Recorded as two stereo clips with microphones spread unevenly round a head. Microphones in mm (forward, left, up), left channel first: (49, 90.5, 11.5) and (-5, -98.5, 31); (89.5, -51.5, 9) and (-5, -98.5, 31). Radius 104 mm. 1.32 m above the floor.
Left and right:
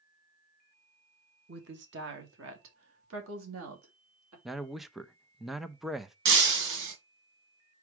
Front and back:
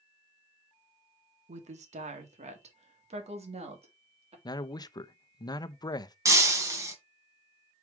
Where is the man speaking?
15° right, 0.7 m.